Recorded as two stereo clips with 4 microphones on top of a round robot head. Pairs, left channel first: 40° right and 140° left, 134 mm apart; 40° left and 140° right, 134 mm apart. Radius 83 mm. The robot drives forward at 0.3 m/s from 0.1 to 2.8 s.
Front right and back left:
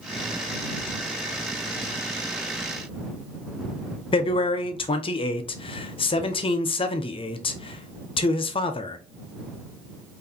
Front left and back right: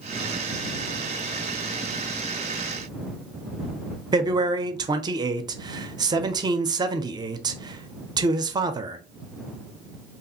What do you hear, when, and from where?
4.1 s a man speaking: 85° right, 0.5 m